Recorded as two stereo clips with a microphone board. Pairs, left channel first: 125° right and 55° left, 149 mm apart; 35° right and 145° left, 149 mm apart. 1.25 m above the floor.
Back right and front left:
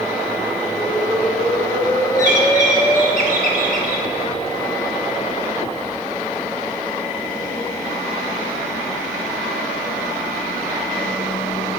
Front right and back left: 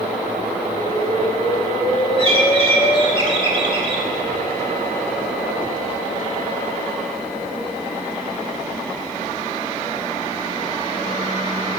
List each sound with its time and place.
0.8 s an explosion: 70° right, 1.2 m
2.2 s a bird: 90° left, 1.8 m